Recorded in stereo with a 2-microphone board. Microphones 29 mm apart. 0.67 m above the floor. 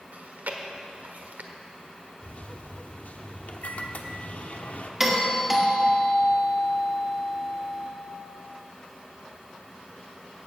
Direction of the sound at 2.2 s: 60° left (ahead or behind).